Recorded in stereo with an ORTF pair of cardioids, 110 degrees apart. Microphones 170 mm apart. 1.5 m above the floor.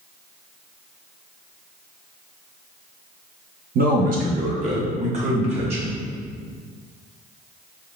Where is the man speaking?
65° right, 1.0 m; by 6.0 s 35° right, 2.5 m.